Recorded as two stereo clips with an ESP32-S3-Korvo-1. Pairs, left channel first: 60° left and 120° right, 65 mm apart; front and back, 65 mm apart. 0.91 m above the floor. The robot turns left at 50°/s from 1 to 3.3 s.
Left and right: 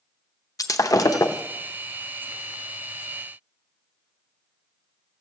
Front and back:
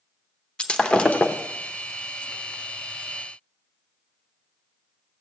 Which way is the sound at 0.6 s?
70° left.